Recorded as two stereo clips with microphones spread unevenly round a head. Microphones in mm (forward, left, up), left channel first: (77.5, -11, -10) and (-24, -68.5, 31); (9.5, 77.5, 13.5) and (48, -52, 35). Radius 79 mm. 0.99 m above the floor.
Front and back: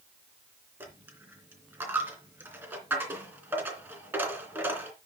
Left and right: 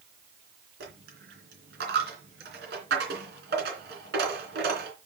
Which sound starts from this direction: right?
A dropped coin, at 0.8 s.